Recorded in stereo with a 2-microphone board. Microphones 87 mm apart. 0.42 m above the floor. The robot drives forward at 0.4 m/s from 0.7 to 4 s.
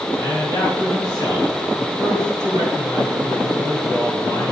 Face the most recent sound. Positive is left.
turn(degrees=65)  # may be behind; listen again after turning